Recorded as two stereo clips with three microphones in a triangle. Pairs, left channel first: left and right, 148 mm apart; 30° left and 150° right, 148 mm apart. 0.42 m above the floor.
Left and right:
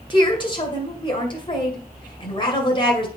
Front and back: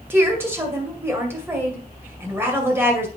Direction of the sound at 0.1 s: 140° left.